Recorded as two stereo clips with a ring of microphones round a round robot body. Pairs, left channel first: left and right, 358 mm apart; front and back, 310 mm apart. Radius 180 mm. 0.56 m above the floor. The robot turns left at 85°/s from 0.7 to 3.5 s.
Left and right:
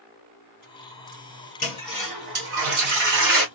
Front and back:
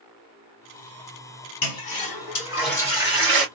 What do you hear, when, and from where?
1.6 s a toilet flushing: 25° left, 2.5 m; by 3.5 s 135° right, 2.5 m